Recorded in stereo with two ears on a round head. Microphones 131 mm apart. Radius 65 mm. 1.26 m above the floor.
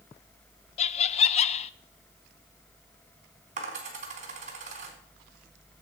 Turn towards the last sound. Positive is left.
turn(degrees=-50)  # may be behind; listen again after turning